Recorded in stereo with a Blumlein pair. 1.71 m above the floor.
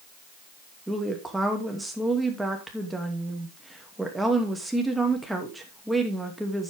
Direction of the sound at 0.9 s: 5° right.